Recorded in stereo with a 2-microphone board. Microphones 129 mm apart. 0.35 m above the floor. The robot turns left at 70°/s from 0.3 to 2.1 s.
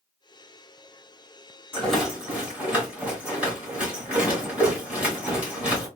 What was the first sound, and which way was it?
A rattle, 15° left (ahead or behind).